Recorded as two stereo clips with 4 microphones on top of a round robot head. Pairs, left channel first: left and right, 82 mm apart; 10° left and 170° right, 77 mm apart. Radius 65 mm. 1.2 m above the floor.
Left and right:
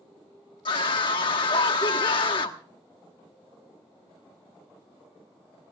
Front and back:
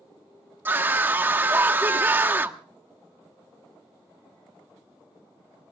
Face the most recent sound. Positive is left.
turn(degrees=125)